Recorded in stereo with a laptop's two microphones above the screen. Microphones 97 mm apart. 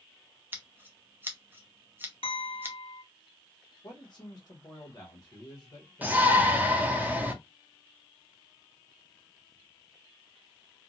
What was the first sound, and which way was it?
Scissors, 20° right (ahead or behind).